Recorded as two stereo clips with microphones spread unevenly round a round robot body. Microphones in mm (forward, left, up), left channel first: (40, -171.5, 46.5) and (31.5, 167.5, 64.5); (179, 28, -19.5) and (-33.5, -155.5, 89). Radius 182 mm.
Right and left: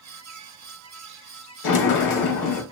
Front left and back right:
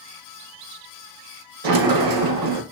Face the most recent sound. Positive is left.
turn(degrees=-130)